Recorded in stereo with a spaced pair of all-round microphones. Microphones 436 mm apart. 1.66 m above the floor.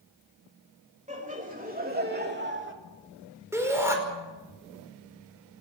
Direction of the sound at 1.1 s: 15° right (ahead or behind).